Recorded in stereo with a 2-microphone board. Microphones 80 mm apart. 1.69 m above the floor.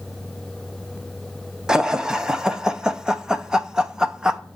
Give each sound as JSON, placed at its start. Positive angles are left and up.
{"t": 1.7, "sound": "laughter", "side_deg": -10, "distance_m": 1.1}